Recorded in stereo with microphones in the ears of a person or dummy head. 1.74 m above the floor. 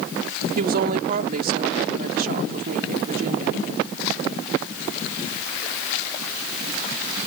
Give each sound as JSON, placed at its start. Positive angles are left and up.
{"t": 0.6, "sound": "a woman speaking", "side_deg": -45}